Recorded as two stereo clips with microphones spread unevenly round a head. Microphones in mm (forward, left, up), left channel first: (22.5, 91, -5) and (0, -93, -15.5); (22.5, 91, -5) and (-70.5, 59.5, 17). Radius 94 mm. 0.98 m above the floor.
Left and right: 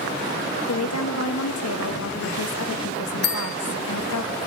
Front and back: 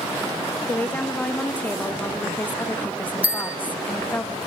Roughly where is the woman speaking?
Left.